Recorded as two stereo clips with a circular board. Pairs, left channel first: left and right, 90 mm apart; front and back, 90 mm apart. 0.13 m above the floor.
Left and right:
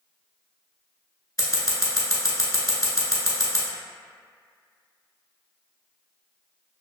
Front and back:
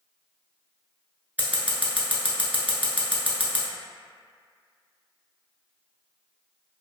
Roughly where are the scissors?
Behind left.